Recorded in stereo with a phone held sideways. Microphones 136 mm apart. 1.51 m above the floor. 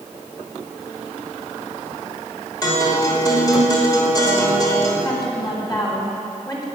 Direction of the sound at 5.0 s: 30° left (ahead or behind).